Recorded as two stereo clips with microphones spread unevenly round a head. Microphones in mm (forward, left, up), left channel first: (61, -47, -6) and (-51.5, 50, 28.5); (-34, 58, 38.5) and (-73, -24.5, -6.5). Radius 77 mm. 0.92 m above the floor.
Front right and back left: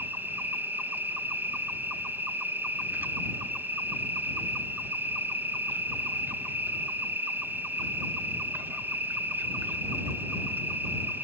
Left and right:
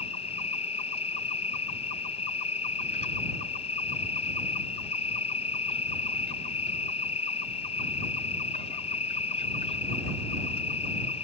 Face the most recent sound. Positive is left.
turn(degrees=50)